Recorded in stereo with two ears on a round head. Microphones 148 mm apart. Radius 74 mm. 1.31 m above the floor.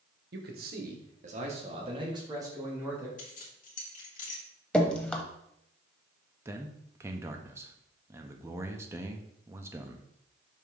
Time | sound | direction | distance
0.3 | a man speaking | 65° right (ahead or behind) | 1.4 m
3.2 | keys jangling | 50° left (ahead or behind) | 1.5 m
4.7 | dripping | 5° left (ahead or behind) | 0.8 m
6.5 | a man speaking | 15° right (ahead or behind) | 0.7 m